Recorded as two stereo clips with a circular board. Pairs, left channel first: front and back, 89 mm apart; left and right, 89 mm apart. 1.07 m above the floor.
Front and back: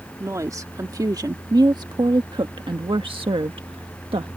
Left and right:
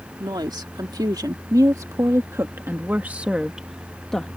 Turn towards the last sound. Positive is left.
turn(degrees=170)